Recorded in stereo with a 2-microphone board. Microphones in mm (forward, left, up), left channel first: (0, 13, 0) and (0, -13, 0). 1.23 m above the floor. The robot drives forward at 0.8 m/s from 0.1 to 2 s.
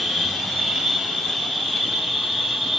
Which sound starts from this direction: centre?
An insect, at 0.0 s.